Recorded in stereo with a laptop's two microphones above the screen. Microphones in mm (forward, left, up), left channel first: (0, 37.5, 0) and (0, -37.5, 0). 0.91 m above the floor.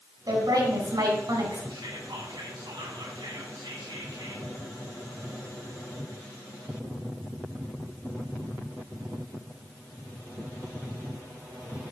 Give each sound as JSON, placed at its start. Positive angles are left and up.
{"t": 0.3, "sound": "a woman speaking", "side_deg": -65, "distance_m": 4.0}
{"t": 1.7, "sound": "whispering", "side_deg": -75, "distance_m": 1.6}